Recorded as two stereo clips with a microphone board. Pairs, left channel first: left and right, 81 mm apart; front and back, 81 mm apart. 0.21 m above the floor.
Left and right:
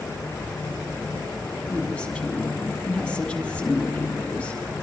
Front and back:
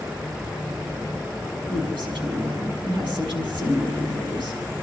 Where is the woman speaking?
170° left, 6.5 m.